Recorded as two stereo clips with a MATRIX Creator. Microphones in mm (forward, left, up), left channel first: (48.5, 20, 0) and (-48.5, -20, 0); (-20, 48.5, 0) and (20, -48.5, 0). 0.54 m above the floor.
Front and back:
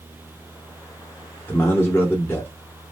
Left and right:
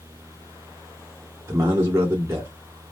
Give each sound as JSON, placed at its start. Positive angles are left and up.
{"t": 1.5, "sound": "a man speaking", "azimuth_deg": -30, "distance_m": 1.4}